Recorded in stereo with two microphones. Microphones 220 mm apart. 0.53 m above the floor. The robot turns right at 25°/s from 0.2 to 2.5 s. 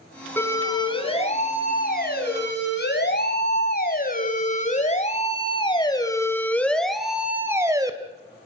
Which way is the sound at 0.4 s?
10° left (ahead or behind).